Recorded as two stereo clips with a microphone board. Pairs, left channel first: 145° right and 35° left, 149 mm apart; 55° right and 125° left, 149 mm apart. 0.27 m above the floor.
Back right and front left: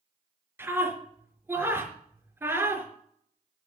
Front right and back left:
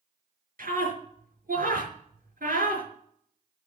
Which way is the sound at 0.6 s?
110° left.